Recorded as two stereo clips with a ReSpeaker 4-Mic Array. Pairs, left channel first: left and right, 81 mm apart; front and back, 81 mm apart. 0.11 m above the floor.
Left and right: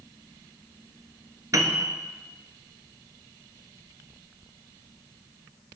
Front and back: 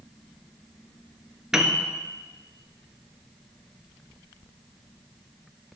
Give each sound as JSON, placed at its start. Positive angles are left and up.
{"t": 1.5, "sound": "a piano", "azimuth_deg": -100, "distance_m": 1.0}